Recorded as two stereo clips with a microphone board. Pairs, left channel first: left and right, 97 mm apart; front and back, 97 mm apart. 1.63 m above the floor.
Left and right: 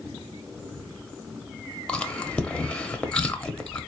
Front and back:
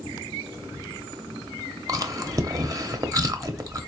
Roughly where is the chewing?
Behind.